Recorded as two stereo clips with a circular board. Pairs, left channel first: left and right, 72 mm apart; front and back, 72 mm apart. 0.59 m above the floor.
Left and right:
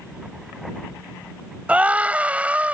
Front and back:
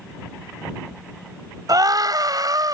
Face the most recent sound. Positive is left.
turn(degrees=-160)